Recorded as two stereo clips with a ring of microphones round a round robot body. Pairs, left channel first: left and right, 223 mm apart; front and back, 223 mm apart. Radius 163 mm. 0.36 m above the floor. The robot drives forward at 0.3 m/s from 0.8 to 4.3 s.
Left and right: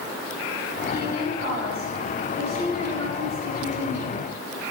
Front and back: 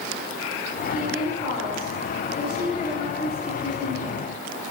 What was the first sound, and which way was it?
A woman speaking, 55° right.